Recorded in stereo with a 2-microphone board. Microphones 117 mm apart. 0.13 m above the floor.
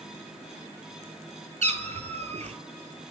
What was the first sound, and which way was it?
A cat meowing, 65° right (ahead or behind).